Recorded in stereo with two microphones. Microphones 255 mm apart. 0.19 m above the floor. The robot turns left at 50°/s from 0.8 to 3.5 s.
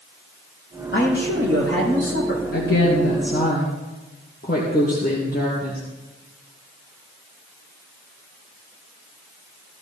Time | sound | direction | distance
0.9 | a man speaking | 130° left | 7.5 m
2.5 | a woman speaking | 90° left | 3.5 m